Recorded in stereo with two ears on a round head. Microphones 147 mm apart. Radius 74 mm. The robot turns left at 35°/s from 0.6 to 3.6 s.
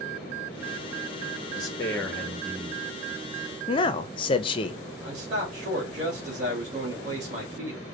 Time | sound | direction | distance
1.6 | a man speaking | 25° left | 1.1 m
3.7 | a man speaking | 30° left (ahead or behind) | 0.6 m
5.0 | a man speaking | 45° right (ahead or behind) | 2 m